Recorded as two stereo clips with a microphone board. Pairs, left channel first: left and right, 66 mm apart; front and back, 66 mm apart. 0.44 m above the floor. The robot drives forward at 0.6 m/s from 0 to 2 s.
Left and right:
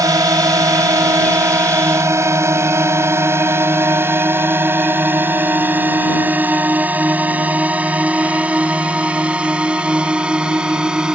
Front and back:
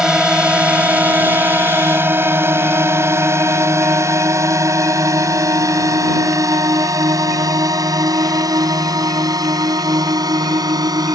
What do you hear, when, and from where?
0.0 s a drone: 100° right; by 11.2 s 165° right